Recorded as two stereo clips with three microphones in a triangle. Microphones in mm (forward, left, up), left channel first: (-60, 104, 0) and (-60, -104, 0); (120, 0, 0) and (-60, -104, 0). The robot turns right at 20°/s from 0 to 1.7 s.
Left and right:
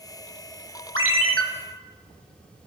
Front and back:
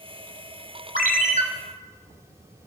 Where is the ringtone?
100° right, 1.0 m; by 1.4 s 90° right, 1.0 m.